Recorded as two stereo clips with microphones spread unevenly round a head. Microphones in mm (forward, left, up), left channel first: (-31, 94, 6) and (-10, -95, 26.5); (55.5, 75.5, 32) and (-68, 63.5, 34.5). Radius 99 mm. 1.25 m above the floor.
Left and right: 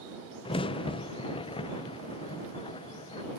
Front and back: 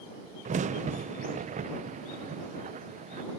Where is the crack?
160° left.